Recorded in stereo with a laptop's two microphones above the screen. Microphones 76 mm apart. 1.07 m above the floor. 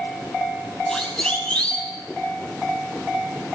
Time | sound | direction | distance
0.9 | a siren | 15° left (ahead or behind) | 8.5 m